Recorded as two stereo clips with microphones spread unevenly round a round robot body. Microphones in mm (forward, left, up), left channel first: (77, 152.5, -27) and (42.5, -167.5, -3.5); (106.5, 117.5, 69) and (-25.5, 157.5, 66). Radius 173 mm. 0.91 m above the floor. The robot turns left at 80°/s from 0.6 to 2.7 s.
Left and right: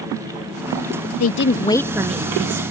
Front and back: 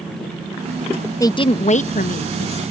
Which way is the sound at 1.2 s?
50° left.